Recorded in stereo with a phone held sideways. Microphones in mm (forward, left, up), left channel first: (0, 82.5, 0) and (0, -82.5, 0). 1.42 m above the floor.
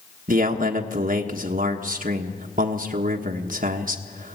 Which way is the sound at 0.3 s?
60° right (ahead or behind).